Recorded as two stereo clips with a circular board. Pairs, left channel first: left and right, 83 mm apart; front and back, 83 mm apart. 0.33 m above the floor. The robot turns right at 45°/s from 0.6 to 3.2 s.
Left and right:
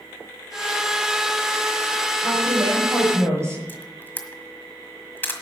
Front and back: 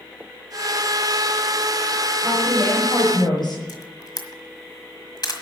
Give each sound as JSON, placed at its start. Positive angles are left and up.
{"t": 2.2, "sound": "a woman speaking", "azimuth_deg": -75, "distance_m": 7.0}
{"t": 3.7, "sound": "a camera shutter", "azimuth_deg": 25, "distance_m": 1.5}